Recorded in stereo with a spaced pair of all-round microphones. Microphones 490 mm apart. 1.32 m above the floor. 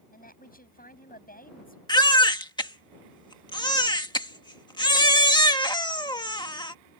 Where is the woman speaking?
15° left (ahead or behind).